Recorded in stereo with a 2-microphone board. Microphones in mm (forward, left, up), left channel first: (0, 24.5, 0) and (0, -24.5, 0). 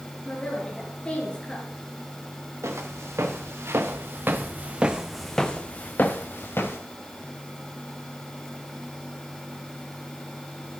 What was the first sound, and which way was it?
A woman speaking, 20° left (ahead or behind).